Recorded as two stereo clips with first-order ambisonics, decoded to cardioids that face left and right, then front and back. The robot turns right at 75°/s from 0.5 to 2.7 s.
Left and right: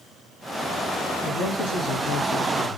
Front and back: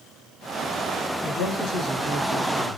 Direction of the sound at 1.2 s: 45° left.